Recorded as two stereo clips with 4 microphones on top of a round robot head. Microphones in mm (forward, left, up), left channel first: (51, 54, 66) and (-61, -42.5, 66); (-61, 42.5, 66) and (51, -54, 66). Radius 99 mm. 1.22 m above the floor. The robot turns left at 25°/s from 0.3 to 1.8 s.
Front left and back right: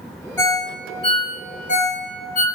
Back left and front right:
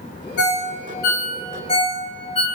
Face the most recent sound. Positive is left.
turn(degrees=80)